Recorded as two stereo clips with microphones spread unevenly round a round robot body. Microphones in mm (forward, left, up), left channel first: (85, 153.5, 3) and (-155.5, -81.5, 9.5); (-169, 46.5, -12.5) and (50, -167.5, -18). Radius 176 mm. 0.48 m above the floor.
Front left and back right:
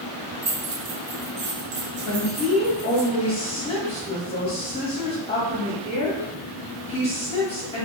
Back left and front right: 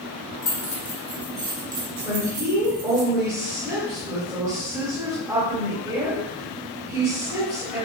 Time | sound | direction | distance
0.4 | keys jangling | 165° left | 0.7 m
2.0 | a woman speaking | 15° left | 1.1 m